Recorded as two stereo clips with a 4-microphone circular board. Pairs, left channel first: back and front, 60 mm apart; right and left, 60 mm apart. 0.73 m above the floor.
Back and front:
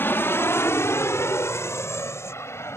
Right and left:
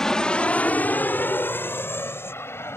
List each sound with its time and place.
0.0 s an aircraft: 165° right; by 2.8 s 135° right